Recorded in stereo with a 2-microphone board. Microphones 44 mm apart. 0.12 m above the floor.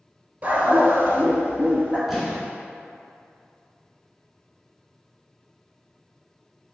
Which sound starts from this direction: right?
A dog barking, at 0.4 s.